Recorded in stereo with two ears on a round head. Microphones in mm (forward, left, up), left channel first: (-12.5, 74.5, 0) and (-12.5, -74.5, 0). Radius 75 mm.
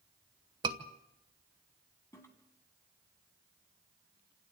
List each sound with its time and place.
0.6 s a scream: 25° right (ahead or behind), 2.0 m
2.1 s a toilet flushing: 15° left (ahead or behind), 2.5 m